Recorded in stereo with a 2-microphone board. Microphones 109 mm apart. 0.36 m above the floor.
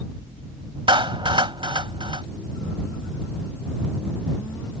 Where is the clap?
50° right (ahead or behind).